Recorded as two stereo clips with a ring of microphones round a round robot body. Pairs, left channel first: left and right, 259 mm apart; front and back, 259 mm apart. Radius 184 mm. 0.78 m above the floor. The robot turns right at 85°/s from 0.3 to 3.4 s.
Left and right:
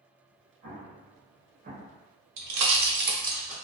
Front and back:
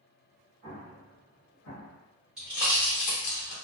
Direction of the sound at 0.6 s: 120° right.